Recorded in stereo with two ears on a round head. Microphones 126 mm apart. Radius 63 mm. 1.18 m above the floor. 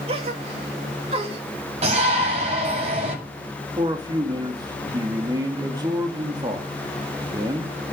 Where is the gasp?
45° right (ahead or behind), 2 m.